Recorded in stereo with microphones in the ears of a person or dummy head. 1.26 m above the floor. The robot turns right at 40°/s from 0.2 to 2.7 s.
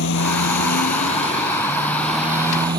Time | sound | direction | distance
0.0 | a motorcycle | 100° left | ?